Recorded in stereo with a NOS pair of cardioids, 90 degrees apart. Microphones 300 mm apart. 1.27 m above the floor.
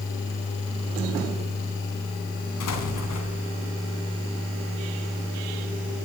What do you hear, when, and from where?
2.6 s an explosion: 70° left, 3.5 m